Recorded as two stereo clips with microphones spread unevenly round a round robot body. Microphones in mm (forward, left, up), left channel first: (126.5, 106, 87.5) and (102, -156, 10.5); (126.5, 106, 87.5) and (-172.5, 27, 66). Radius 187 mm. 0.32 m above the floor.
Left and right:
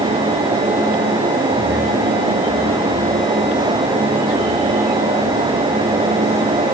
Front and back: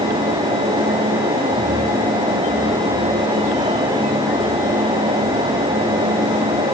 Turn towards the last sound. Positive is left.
No sound to turn to.